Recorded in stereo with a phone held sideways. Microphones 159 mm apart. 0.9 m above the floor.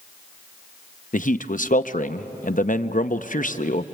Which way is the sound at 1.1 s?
60° left (ahead or behind).